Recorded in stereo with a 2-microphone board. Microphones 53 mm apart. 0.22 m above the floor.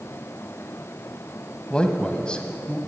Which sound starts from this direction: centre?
A man speaking, at 1.7 s.